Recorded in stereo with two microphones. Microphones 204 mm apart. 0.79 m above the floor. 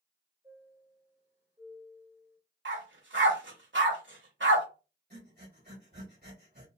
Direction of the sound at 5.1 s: 50° right (ahead or behind).